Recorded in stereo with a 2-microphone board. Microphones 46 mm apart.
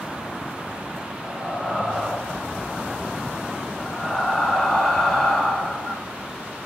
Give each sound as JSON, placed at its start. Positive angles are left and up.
{"t": 1.2, "sound": "breathing", "side_deg": 5, "distance_m": 1.4}